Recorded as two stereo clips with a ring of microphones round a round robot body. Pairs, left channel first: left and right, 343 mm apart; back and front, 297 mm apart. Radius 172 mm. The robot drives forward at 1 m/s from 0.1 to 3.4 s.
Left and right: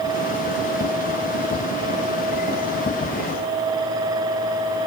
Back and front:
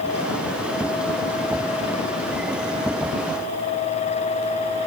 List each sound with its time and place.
Only background noise.